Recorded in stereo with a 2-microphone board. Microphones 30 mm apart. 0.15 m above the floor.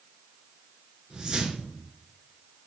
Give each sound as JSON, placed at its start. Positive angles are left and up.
{"t": 1.1, "sound": "a whoosh", "side_deg": -25, "distance_m": 1.0}